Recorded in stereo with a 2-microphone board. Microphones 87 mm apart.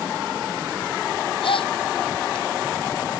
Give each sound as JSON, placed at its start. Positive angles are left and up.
{"t": 1.4, "sound": "a gasp", "side_deg": 85}